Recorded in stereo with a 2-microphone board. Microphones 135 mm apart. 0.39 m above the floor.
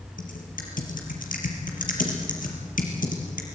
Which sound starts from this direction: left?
Typing on a keyboard, at 0.2 s.